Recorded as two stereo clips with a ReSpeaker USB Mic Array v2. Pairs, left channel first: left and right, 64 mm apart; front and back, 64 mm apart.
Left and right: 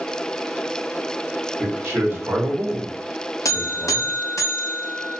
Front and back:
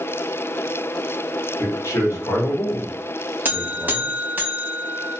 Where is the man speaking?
40° right, 1.3 m; by 4.2 s 105° left, 0.7 m.